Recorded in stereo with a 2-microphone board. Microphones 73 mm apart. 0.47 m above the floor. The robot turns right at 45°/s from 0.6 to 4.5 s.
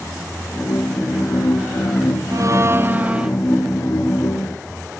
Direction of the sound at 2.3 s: 55° right.